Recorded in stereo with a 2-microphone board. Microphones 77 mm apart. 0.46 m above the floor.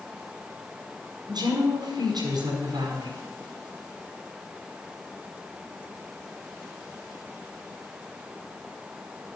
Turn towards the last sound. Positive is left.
turn(degrees=-60)  # may be behind; listen again after turning